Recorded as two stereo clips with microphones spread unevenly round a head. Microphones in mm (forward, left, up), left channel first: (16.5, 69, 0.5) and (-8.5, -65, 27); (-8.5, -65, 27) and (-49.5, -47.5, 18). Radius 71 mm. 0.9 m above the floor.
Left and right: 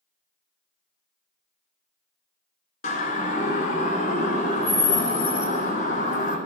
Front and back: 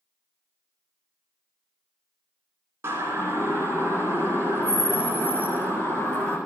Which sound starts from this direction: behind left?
A siren, at 2.8 s.